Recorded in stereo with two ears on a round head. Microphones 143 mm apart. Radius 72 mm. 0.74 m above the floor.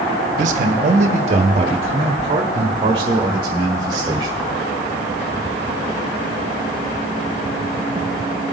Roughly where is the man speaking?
Right.